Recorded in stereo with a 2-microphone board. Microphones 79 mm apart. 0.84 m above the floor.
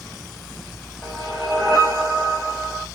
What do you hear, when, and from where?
1.0 s a whoosh: 10° left (ahead or behind), 1.1 m